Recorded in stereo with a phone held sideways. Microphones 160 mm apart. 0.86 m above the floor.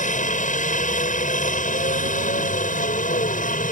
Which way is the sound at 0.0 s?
50° left (ahead or behind).